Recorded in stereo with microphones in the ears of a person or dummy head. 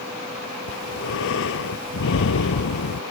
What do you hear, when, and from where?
0.7 s breathing: 65° left (ahead or behind)